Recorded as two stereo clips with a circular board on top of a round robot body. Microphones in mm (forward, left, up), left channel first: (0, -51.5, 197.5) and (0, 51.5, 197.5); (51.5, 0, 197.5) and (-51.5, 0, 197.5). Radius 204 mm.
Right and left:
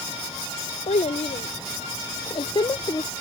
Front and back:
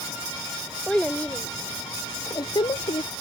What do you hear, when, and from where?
0.9 s a child speaking: 85° right; by 3.1 s 35° right